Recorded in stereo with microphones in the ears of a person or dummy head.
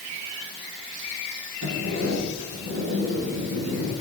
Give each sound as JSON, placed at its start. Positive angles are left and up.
{"t": 1.6, "sound": "a sliding door", "side_deg": -80, "distance_m": 9.5}